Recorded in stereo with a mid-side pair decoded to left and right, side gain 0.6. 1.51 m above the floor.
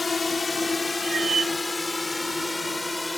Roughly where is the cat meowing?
Ahead right.